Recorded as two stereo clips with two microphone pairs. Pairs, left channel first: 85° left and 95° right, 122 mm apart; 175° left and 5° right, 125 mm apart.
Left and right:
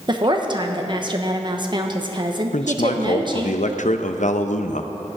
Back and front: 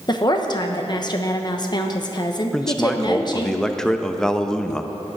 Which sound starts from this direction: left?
A man speaking, at 2.5 s.